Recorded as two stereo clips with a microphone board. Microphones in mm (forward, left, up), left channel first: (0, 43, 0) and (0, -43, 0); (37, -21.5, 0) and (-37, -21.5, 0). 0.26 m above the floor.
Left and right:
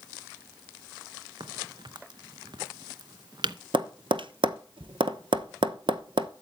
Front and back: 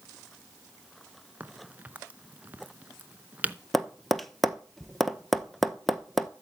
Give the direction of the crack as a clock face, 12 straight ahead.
4 o'clock.